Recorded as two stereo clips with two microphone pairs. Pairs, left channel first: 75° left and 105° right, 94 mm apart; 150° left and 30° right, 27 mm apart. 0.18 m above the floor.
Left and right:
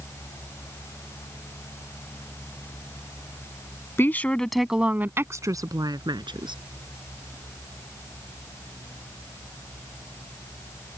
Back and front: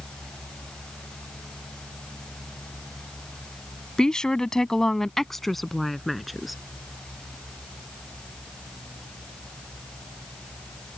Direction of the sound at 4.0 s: 120° left.